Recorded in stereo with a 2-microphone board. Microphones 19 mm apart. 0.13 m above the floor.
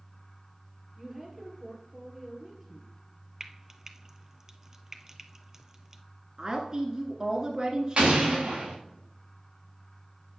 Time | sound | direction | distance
1.0 | a woman speaking | 5° right (ahead or behind) | 3 m
3.4 | frying | 20° right (ahead or behind) | 0.8 m
6.4 | a woman speaking | 40° right (ahead or behind) | 1.4 m
8.0 | an explosion | 55° right (ahead or behind) | 3.5 m